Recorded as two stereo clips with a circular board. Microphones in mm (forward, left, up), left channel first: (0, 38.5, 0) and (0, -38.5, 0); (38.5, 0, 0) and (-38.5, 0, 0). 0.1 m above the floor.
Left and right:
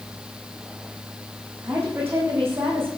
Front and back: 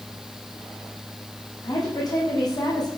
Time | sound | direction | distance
1.6 | a woman speaking | 30° right | 7 m